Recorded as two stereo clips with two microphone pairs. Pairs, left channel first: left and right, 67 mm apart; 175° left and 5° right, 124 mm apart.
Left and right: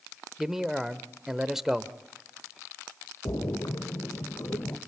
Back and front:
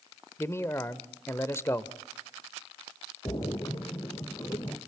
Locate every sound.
0.4 s a man speaking: 160° right, 0.8 m
3.2 s a splash: 120° left, 2.5 m